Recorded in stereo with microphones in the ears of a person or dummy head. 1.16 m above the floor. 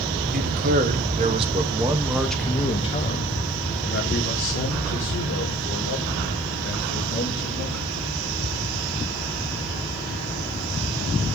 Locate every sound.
0.3 s a man speaking: 45° right (ahead or behind), 1.3 m; by 7.9 s 70° left (ahead or behind), 3 m